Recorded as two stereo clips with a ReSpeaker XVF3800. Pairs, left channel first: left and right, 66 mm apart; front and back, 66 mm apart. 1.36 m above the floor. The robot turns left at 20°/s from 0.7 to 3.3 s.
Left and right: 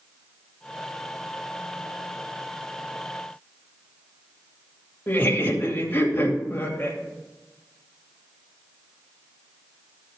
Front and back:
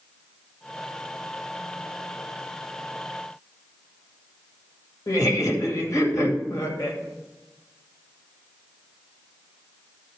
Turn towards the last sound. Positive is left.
turn(degrees=30)